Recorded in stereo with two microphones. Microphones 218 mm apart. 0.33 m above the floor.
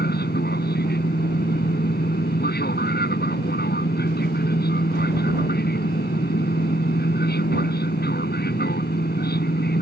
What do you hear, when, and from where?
0.0 s an aircraft: 50° left (ahead or behind)